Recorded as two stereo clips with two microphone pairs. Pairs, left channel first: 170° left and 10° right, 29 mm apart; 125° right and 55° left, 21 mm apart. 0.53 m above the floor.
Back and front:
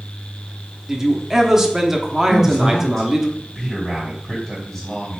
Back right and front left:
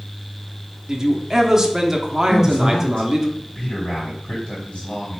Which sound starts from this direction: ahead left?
A man speaking, at 0.9 s.